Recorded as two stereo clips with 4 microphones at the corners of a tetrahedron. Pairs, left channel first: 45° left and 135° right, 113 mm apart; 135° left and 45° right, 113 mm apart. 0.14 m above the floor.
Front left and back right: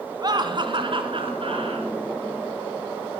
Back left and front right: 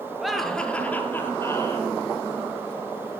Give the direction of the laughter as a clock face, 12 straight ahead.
4 o'clock.